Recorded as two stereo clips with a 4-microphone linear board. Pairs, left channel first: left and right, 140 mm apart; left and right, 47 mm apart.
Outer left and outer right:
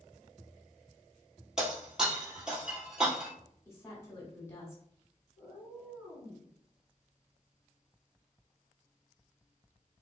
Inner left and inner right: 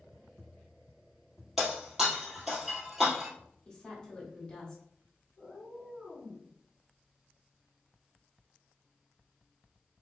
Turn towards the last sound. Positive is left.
turn(degrees=-15)  # may be behind; listen again after turning